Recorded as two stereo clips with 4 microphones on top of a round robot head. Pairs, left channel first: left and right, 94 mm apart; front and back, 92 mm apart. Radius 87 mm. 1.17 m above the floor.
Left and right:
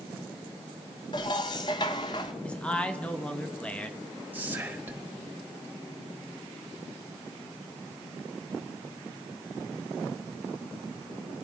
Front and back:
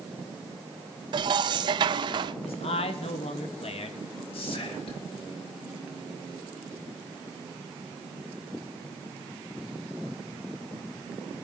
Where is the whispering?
20° right, 3 m.